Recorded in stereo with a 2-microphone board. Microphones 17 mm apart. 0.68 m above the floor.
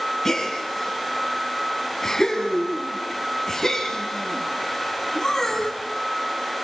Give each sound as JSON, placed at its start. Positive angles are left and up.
{"t": 0.2, "sound": "a gasp", "side_deg": 25, "distance_m": 4.5}